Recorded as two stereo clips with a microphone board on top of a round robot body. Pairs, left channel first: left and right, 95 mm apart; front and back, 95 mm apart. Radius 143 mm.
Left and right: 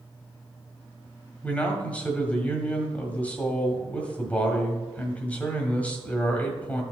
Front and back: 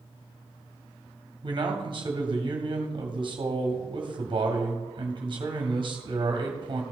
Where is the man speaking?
160° left, 1.7 m.